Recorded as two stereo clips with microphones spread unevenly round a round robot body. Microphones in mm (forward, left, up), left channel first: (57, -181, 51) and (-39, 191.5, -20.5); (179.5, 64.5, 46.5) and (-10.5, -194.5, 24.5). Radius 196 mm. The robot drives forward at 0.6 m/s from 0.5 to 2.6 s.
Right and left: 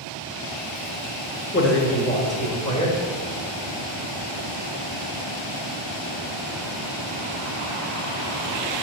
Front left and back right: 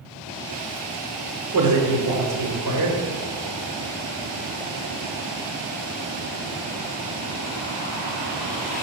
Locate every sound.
1.5 s a man speaking: 145° right, 1.5 m; by 3.0 s 155° right, 2.0 m